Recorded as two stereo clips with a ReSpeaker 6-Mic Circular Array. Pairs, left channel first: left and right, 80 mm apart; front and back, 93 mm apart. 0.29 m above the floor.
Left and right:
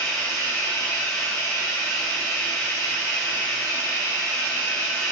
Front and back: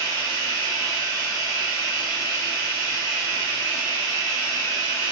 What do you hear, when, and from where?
0.0 s running water: 45° left, 2.0 m